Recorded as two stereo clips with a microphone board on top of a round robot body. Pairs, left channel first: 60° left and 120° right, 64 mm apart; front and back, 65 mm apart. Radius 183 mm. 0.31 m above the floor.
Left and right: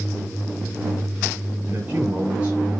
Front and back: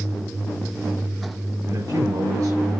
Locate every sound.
1.6 s a man speaking: 175° left, 9 m